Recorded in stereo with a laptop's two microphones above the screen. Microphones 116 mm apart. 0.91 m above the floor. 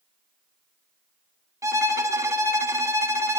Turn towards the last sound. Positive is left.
turn(degrees=-25)  # may be behind; listen again after turning